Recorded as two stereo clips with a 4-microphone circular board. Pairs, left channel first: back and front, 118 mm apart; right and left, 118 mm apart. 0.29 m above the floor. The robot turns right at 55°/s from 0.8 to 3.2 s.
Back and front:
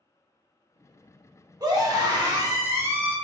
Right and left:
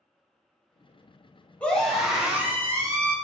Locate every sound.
1.6 s a scream: 20° right, 1.1 m; by 3.1 s 65° left, 1.1 m